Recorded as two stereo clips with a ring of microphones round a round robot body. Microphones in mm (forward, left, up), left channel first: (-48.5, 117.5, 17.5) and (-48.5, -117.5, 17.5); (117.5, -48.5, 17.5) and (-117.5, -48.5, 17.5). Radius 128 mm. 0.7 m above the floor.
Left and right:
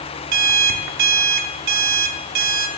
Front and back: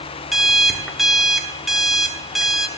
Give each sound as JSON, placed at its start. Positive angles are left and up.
{"t": 0.3, "sound": "an alarm clock", "azimuth_deg": -90, "distance_m": 1.1}